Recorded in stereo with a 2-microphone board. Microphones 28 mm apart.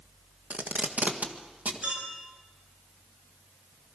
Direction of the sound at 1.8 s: 55° right (ahead or behind).